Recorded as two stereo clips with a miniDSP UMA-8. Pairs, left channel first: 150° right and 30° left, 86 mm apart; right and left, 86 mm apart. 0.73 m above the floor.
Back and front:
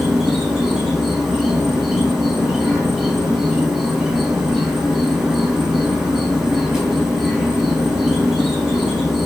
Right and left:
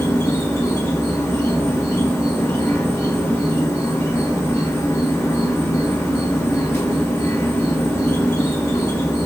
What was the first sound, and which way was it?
An insect, 50° right.